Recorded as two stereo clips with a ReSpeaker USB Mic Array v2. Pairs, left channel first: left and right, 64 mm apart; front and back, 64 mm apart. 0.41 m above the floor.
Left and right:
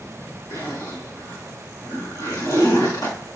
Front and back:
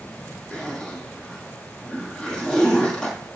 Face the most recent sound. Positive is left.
turn(degrees=75)